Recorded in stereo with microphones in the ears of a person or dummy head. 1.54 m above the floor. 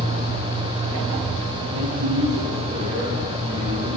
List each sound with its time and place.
1.7 s a man speaking: 50° right (ahead or behind), 1.6 m